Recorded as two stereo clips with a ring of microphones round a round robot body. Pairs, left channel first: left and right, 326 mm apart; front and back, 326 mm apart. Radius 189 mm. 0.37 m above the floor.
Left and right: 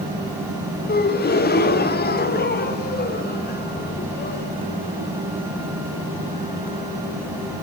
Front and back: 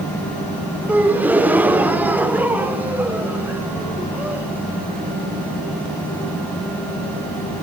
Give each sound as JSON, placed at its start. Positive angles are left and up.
{"t": 0.9, "sound": "a gasp", "azimuth_deg": 100, "distance_m": 1.5}